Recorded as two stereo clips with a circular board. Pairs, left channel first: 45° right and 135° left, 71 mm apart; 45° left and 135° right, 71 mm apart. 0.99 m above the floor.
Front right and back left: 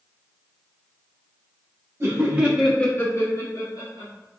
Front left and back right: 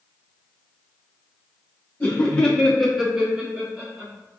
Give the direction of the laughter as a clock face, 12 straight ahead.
8 o'clock.